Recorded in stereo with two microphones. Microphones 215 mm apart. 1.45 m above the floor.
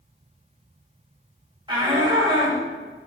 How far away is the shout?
About 6 m.